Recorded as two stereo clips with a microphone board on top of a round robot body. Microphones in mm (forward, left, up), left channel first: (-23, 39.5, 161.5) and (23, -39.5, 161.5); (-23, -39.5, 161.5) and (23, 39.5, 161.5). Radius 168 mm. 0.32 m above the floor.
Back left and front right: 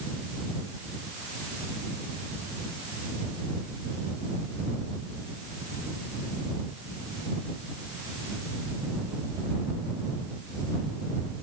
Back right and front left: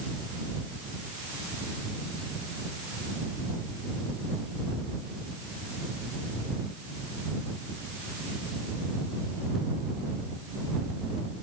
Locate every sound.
Only background noise.